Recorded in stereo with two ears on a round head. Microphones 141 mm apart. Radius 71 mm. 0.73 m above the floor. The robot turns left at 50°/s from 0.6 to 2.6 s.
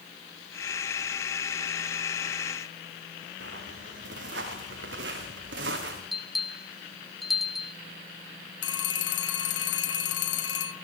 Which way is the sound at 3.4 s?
85° right.